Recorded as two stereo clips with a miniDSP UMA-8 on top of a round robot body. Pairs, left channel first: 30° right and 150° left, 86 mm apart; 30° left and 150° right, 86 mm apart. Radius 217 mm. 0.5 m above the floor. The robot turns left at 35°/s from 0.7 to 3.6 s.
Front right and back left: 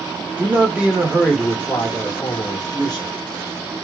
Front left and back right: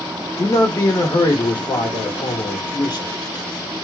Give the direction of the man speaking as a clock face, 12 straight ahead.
9 o'clock.